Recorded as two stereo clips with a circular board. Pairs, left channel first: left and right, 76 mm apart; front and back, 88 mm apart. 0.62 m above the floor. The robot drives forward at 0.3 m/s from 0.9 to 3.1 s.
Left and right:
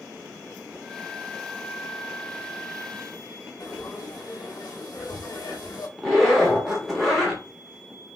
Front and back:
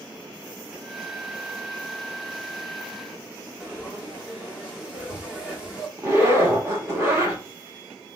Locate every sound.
3.6 s frying: 105° left, 0.9 m
6.0 s a zipper: straight behind, 1.0 m